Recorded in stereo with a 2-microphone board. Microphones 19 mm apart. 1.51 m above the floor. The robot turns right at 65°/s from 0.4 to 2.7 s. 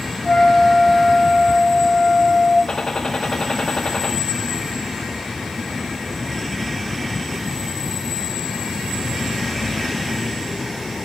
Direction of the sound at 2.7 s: 45° left (ahead or behind).